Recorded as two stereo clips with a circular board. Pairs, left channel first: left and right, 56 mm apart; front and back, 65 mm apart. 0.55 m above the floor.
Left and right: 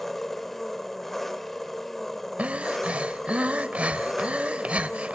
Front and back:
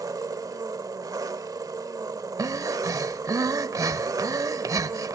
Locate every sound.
0.0 s an engine running: 175° left, 1.1 m
2.4 s breathing: 155° right, 0.7 m